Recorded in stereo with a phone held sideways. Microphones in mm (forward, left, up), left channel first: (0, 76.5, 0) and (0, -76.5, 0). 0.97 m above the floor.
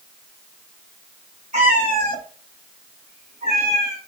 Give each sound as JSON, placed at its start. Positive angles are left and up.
{"t": 1.5, "sound": "a cat meowing", "side_deg": -50, "distance_m": 2.5}